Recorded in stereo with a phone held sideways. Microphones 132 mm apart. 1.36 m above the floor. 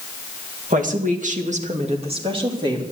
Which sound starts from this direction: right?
A woman speaking, at 0.7 s.